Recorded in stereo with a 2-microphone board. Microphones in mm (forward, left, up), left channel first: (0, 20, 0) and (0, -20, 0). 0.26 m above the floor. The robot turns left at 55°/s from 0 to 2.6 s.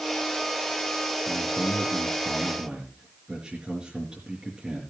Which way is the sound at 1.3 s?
85° right.